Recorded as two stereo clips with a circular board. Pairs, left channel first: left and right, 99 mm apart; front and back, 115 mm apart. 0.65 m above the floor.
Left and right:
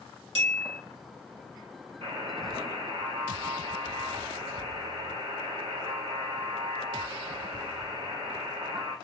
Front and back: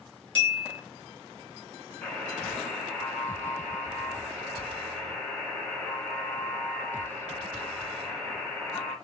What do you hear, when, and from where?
0.3 s a bell: 80° right, 2.0 m
2.0 s a buzzer: 85° right, 2 m